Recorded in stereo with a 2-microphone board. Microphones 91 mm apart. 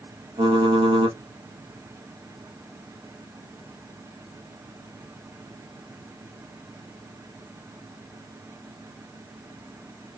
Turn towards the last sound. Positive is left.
turn(degrees=-75)  # may be behind; listen again after turning